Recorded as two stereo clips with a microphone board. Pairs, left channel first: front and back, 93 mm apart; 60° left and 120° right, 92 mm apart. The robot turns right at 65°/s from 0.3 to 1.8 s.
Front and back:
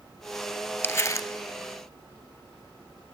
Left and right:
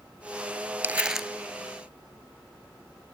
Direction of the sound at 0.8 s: 60° right.